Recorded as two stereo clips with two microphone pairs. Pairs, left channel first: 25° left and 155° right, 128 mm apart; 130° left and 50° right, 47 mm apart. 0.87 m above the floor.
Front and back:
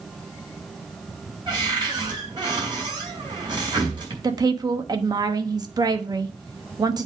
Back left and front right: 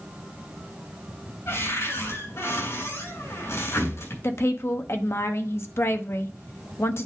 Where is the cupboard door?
155° left, 4.5 m.